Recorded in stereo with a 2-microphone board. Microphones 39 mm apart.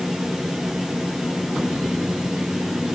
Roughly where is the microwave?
I don't hear a microwave.